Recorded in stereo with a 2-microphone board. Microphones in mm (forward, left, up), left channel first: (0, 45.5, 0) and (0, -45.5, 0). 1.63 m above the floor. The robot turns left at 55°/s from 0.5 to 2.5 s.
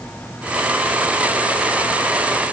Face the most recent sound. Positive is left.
No sound to turn to.